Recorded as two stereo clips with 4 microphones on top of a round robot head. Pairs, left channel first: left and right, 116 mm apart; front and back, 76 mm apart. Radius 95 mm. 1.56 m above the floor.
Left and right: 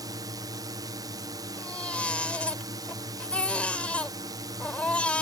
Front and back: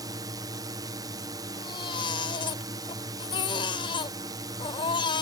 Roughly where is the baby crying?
Ahead.